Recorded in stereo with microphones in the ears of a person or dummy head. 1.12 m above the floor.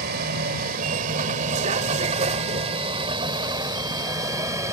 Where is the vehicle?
60° right (ahead or behind); by 4.7 s 20° right (ahead or behind).